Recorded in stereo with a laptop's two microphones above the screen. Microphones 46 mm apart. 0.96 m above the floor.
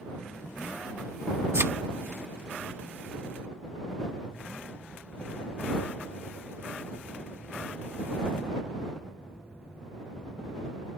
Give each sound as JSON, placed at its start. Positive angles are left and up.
{"t": 1.5, "sound": "a thud", "side_deg": -60}